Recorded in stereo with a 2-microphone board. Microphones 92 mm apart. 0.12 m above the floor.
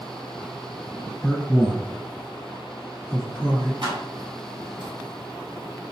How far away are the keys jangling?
About 1.6 m.